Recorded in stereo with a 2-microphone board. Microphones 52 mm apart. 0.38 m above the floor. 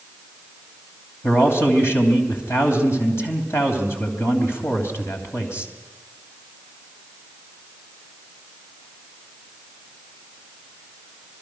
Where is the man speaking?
60° left (ahead or behind), 3 m.